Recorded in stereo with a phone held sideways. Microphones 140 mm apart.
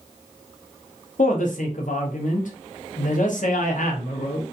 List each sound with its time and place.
1.2 s a woman speaking: 70° left (ahead or behind), 0.7 m